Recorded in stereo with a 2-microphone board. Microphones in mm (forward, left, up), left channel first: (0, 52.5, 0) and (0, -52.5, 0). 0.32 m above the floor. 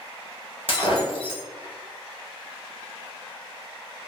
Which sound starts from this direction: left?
Breaking glass, at 0.7 s.